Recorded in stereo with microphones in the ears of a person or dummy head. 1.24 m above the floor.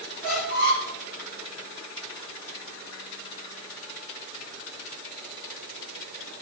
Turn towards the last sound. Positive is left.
turn(degrees=-50)  # may be behind; listen again after turning